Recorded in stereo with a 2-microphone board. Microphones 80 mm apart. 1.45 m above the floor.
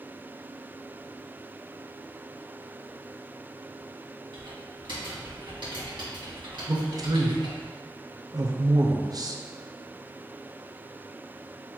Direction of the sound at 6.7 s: 50° right (ahead or behind).